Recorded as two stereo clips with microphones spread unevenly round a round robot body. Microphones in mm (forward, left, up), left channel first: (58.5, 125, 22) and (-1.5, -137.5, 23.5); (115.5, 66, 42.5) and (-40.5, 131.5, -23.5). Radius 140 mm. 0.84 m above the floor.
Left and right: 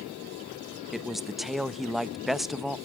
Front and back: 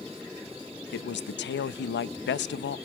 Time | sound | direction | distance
0.9 | a man speaking | 15° right | 0.8 m